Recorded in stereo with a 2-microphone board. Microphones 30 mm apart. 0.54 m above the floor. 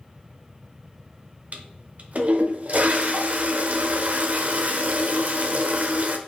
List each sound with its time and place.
1.5 s a toilet flushing: 55° right (ahead or behind), 0.6 m